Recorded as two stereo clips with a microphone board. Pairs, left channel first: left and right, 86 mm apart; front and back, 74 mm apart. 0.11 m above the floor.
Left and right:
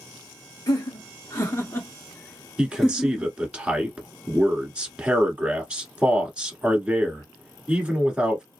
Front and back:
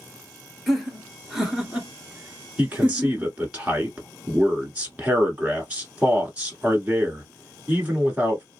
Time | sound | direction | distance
0.7 | laughter | 90° left | 1.7 m
2.6 | a man speaking | 145° right | 1.4 m